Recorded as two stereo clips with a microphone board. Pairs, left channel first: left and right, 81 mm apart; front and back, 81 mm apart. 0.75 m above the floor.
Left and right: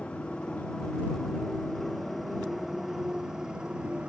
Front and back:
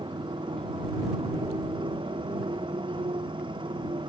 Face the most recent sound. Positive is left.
turn(degrees=-170)